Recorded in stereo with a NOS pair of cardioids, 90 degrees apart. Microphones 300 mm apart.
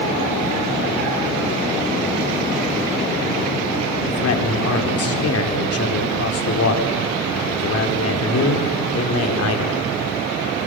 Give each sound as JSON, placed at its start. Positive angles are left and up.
{"t": 4.1, "sound": "a man speaking", "azimuth_deg": 50, "distance_m": 4.0}